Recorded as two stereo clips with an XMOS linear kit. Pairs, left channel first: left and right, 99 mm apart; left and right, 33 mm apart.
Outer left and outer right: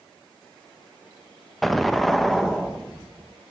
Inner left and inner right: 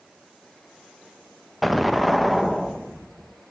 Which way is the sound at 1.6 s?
Centre (ahead or behind).